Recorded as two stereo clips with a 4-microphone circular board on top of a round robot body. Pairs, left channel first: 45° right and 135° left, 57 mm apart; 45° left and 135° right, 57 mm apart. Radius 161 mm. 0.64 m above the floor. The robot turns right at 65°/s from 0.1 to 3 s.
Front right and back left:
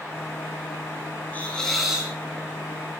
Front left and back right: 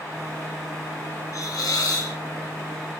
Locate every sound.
1.3 s a hiss: 15° left, 7.5 m; by 2.1 s 70° left, 7.5 m